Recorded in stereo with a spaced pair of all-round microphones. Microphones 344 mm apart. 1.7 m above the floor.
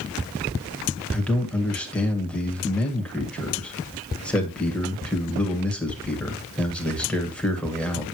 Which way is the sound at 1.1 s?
5° left (ahead or behind).